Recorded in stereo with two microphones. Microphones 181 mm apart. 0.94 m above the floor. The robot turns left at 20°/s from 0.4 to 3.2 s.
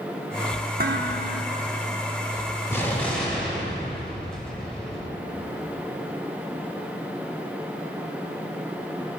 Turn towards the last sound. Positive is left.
turn(degrees=5)  # may be behind; listen again after turning